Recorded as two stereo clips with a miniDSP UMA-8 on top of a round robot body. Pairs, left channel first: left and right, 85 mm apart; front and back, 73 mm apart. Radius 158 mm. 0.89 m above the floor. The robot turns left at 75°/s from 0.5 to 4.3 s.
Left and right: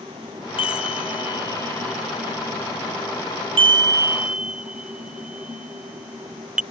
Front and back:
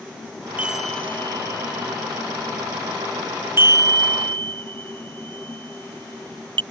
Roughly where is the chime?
Left.